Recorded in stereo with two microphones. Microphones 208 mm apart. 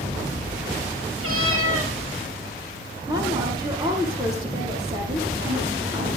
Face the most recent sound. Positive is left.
turn(degrees=-20)  # may be behind; listen again after turning